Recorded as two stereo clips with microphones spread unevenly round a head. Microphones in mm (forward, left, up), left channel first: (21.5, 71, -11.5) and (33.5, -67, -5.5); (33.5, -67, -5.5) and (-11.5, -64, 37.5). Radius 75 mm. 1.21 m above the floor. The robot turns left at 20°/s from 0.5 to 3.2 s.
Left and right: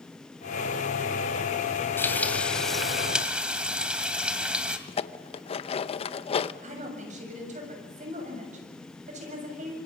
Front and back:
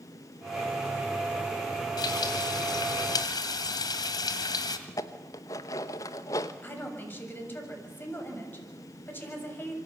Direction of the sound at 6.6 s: 50° right.